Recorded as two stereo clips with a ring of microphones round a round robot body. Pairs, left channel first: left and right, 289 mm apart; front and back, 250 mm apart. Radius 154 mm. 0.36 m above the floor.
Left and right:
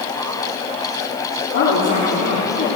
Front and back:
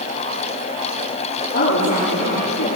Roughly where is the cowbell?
No cowbell in this recording.